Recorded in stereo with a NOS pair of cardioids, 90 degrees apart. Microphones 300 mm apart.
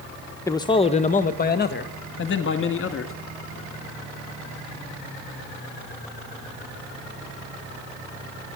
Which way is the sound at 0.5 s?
10° left.